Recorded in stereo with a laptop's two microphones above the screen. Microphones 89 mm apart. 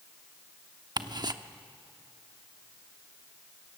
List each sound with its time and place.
1.0 s ticking: 50° right (ahead or behind), 1.0 m